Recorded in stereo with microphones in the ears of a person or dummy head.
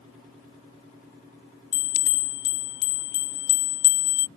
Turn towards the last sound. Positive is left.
turn(degrees=50)  # may be behind; listen again after turning